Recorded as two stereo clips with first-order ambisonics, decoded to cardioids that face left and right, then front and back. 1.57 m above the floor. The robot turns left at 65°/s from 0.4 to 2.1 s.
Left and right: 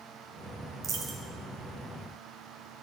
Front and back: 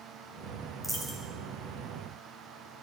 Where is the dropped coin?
100° right, 1.2 m; by 1.2 s 120° right, 1.2 m.